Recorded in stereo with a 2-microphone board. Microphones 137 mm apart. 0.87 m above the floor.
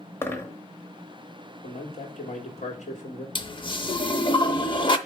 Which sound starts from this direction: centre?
A dropped coin, at 0.2 s.